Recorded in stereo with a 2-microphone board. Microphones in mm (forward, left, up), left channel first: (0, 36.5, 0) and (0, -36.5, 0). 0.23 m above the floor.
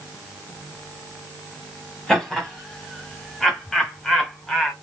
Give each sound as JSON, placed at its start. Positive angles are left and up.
{"t": 2.1, "sound": "laughter", "side_deg": 5, "distance_m": 1.5}